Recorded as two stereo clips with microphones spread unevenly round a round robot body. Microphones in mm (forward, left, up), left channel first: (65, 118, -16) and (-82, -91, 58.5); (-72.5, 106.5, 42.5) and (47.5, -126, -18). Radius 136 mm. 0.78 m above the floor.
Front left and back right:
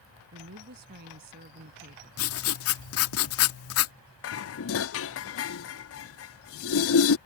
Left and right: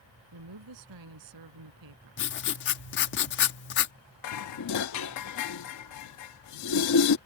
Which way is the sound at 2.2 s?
60° left.